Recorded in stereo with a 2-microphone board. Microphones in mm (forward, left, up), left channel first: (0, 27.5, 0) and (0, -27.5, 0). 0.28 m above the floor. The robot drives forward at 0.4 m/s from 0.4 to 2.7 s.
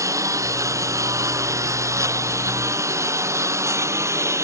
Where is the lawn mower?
75° right (ahead or behind); by 4.5 s 60° right (ahead or behind).